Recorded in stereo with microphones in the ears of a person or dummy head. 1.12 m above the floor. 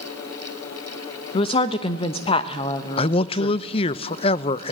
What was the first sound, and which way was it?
A woman speaking, 30° left (ahead or behind).